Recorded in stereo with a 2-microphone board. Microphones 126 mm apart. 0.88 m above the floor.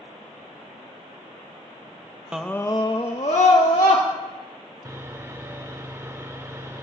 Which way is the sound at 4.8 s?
20° right (ahead or behind).